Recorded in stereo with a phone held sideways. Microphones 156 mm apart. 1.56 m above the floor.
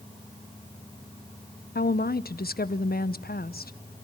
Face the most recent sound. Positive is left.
turn(degrees=75)  # may be behind; listen again after turning